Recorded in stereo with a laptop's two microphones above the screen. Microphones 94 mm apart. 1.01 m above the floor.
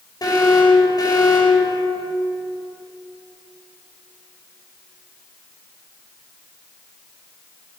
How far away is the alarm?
About 5 m.